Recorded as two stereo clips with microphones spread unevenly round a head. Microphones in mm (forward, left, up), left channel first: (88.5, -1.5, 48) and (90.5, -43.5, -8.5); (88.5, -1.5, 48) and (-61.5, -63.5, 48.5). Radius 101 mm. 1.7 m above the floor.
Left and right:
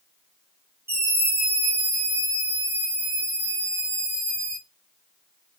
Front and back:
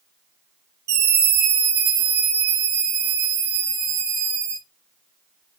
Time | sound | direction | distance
0.9 | a scream | 140° right | 1.7 m